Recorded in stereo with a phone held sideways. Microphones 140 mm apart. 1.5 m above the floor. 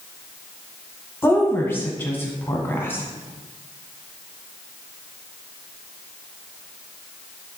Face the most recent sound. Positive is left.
turn(degrees=15)  # may be behind; listen again after turning